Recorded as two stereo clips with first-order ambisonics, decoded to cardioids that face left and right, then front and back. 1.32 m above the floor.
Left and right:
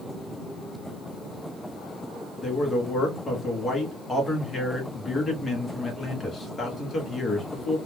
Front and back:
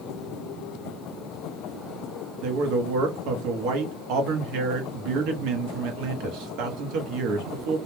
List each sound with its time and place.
2.4 s a man speaking: 165° left, 0.9 m